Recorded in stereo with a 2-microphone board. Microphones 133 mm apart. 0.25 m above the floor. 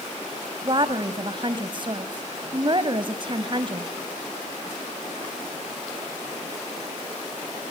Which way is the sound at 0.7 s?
35° right (ahead or behind).